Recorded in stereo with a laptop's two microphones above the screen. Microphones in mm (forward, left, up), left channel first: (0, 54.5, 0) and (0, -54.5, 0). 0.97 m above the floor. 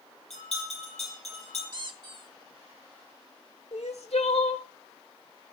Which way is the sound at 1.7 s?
45° right (ahead or behind).